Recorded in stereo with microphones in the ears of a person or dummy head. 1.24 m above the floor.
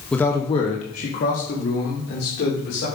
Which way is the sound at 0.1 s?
5° left (ahead or behind).